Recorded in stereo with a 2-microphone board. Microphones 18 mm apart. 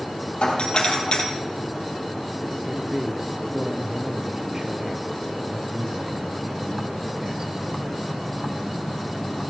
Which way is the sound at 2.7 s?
40° right (ahead or behind).